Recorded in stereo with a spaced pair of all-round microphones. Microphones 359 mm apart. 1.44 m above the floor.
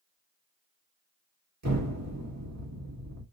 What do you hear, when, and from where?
1.6 s an explosion: 50° right (ahead or behind), 1.5 m